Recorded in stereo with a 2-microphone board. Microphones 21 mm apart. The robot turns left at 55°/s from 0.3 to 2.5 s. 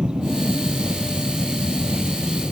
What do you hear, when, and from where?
0.0 s an aircraft: 45° right (ahead or behind); by 2.5 s 5° right (ahead or behind)